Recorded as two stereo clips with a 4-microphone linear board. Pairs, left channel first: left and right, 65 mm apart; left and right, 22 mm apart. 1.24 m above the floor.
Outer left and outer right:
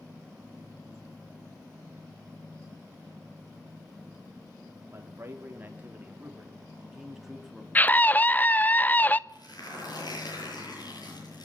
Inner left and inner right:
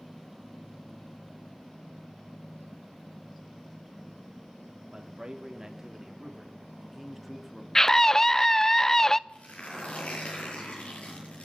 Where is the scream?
25° left (ahead or behind), 0.6 m.